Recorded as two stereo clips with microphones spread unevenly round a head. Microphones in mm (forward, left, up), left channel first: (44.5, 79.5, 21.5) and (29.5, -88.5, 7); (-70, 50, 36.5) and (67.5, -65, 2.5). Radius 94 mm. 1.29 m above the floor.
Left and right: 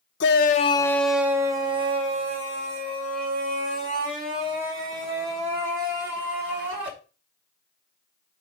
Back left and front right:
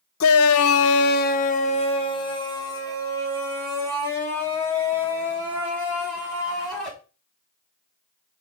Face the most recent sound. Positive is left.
turn(degrees=-135)